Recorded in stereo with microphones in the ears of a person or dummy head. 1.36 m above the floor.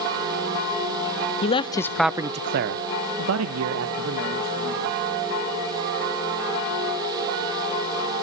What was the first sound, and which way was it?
A man speaking, 35° left (ahead or behind).